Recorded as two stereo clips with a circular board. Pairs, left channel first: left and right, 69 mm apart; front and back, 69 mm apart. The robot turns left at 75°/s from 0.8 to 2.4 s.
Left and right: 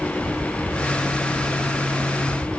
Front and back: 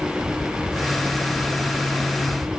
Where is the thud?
I don't hear a thud.